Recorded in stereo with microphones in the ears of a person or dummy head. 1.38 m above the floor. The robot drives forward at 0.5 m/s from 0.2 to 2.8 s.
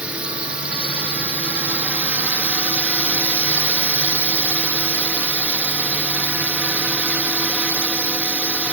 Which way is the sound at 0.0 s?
Centre (ahead or behind).